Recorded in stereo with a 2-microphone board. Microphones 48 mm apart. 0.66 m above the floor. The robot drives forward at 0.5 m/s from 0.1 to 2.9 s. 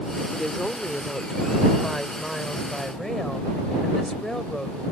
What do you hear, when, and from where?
0.3 s a woman speaking: 10° left (ahead or behind); by 4.8 s 5° left (ahead or behind)